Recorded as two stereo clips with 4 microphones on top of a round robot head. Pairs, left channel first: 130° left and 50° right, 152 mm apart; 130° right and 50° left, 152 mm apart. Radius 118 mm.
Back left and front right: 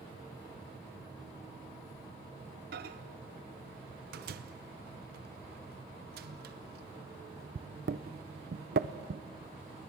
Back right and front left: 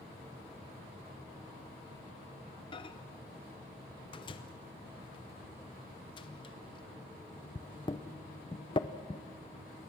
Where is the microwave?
70° right, 0.6 m.